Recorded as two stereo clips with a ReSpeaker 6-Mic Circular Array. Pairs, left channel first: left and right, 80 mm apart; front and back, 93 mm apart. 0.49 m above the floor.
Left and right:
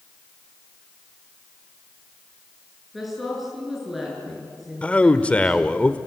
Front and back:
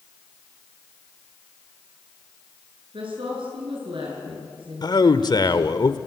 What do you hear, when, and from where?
2.9 s a woman speaking: straight behind, 6.5 m
4.8 s a man speaking: 20° left, 1.2 m